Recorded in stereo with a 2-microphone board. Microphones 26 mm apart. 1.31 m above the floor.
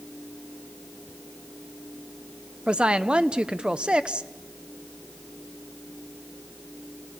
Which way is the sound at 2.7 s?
40° right (ahead or behind).